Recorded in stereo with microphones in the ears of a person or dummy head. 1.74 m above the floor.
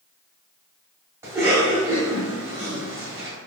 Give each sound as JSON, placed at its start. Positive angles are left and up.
{"t": 1.2, "sound": "a cough", "side_deg": -15, "distance_m": 1.6}